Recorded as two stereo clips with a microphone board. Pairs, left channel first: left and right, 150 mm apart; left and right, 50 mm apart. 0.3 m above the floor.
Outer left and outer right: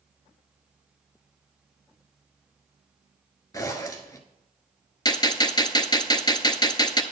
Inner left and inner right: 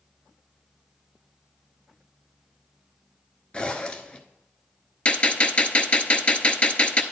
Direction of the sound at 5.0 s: 30° left (ahead or behind).